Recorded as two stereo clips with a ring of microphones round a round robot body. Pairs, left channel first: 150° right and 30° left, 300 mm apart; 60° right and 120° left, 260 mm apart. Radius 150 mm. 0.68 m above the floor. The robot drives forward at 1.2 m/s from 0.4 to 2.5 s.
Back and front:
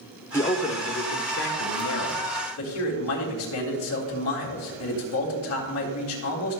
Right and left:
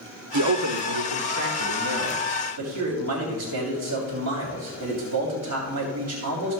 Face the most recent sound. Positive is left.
turn(degrees=165)